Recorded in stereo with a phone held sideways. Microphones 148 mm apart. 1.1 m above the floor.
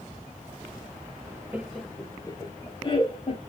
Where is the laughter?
15° right (ahead or behind), 0.6 m; by 3.4 s 40° left (ahead or behind), 1.7 m.